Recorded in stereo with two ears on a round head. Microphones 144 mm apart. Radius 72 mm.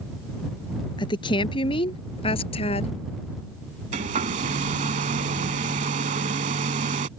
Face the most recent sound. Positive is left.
turn(degrees=-45)  # may be behind; listen again after turning